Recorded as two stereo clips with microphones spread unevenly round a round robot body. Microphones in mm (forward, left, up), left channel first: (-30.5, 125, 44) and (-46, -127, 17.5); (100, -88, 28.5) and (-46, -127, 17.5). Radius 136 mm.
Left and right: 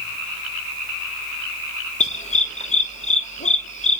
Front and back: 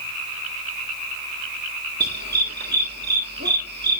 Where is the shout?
No shout in this recording.